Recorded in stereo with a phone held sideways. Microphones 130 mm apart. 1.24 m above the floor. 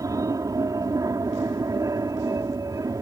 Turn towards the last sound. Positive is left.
turn(degrees=-25)  # may be behind; listen again after turning